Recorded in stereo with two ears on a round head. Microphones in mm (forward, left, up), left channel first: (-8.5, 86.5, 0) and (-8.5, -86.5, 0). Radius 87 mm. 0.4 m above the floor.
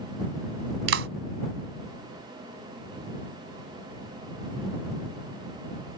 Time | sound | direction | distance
0.9 | a clap | 70° right (ahead or behind) | ?